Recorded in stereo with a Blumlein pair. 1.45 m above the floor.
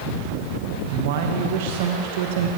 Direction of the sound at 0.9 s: 50° right.